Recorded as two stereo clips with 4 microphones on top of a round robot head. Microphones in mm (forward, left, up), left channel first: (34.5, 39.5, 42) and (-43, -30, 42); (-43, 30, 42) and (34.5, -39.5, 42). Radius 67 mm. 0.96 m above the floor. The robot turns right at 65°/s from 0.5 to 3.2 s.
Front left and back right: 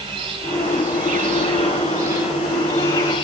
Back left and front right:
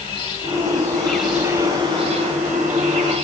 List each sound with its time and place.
0.0 s an insect: 175° left, 3.5 m; by 3.2 s 10° right, 3.5 m